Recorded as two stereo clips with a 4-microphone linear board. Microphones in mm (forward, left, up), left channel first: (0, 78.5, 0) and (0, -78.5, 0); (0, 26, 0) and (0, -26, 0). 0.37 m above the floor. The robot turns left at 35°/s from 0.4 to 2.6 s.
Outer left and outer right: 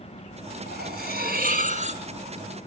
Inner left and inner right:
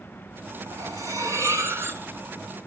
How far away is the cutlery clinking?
About 3 m.